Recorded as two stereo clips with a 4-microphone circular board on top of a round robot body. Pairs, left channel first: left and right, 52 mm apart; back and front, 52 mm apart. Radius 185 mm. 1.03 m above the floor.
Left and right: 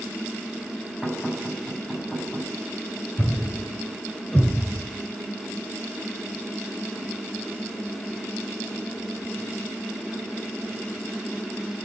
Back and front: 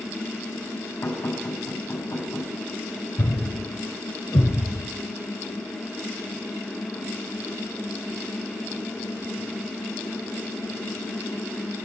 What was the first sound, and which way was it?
Knocking, 165° left.